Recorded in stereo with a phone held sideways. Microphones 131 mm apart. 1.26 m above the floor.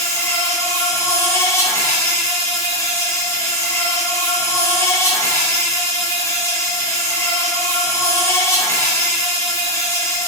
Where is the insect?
20° left (ahead or behind), 5.5 m.